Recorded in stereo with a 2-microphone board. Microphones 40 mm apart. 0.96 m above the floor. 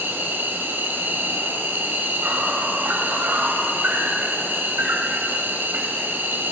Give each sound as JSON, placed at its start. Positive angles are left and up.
{"t": 0.0, "sound": "an insect", "side_deg": -60, "distance_m": 1.9}